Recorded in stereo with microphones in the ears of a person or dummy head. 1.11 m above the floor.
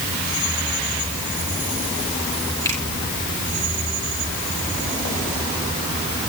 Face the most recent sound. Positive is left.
turn(degrees=20)  # may be behind; listen again after turning